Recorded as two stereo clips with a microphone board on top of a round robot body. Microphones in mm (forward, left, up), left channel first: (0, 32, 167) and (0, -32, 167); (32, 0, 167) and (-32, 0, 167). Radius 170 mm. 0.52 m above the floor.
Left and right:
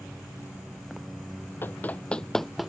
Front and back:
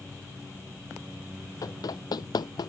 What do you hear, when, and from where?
1.6 s running footsteps: 30° left; by 2.7 s 5° right